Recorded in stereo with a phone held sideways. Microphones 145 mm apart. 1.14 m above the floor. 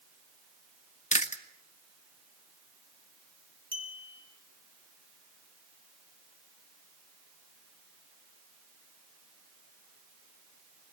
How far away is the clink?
About 2.5 m.